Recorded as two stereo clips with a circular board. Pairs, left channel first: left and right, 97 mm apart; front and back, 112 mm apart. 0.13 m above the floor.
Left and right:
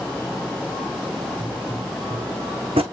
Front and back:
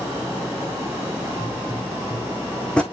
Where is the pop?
80° right, 1.6 m.